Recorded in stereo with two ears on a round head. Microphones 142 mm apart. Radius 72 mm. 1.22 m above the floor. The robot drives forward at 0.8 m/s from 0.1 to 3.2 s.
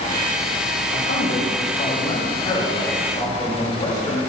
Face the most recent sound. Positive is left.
turn(degrees=30)  # may be behind; listen again after turning